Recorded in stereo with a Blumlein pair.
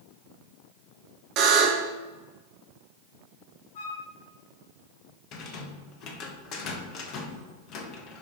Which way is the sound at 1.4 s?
40° right.